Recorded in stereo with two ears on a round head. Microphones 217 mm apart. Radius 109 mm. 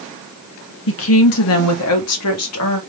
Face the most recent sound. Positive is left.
turn(degrees=65)  # may be behind; listen again after turning